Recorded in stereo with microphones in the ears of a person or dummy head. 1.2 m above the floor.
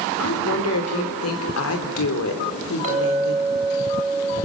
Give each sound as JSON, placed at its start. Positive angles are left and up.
{"t": 0.2, "sound": "a woman speaking", "side_deg": 85, "distance_m": 5.0}
{"t": 2.8, "sound": "a clink", "side_deg": -35, "distance_m": 8.5}